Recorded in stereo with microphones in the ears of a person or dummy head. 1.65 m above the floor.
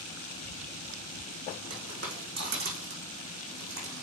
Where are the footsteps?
45° right (ahead or behind), 4.5 m; by 4.0 s 50° right (ahead or behind), 3.5 m.